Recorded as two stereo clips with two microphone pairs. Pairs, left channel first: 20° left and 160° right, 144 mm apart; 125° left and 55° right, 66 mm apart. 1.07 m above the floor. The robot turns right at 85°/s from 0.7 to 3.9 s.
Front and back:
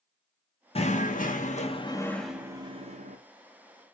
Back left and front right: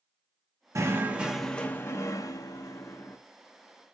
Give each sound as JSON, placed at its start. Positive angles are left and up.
{"t": 0.8, "sound": "knocking", "azimuth_deg": -20, "distance_m": 0.8}